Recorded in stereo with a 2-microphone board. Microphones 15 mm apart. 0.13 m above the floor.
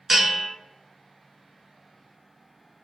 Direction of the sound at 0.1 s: 20° right (ahead or behind).